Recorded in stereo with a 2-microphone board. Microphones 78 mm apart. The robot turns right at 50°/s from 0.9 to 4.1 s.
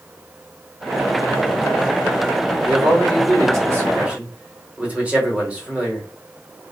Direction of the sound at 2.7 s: 95° right.